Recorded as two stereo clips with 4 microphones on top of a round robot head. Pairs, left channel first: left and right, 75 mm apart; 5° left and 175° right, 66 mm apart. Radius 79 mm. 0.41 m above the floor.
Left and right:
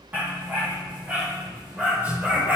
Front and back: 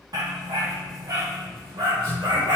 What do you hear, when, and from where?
0.1 s a dog barking: 160° right, 5 m